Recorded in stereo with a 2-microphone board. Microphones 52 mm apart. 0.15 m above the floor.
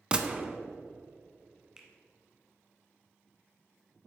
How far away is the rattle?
I don't hear a rattle.